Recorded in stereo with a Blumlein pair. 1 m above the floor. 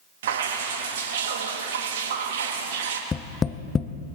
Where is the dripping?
60° right, 1.4 m.